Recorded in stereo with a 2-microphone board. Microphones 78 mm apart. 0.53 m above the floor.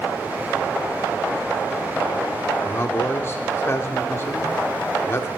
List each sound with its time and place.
2.6 s a man speaking: 35° left (ahead or behind), 1.1 m